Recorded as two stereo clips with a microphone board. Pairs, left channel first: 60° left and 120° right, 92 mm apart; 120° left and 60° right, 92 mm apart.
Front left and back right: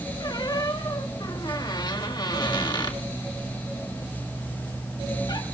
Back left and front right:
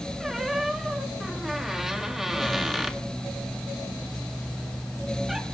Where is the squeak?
25° left, 1.7 m.